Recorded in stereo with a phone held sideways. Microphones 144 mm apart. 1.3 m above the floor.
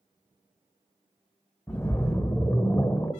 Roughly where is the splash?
Centre.